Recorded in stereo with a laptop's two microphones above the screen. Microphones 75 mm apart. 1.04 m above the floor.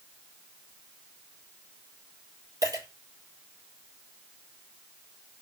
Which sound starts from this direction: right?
A dropped coin, at 2.6 s.